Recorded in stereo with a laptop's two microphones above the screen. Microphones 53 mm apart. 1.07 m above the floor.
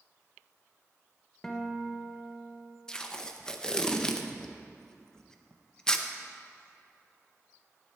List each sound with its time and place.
1.4 s a guitar: 10° left (ahead or behind), 0.8 m
2.9 s tape being pulled: 15° left (ahead or behind), 0.6 m